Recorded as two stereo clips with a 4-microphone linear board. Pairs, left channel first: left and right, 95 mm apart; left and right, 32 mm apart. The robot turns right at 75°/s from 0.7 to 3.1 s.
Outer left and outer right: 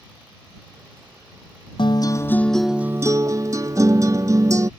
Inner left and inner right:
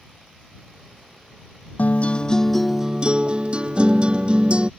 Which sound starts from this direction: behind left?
A guitar, at 1.8 s.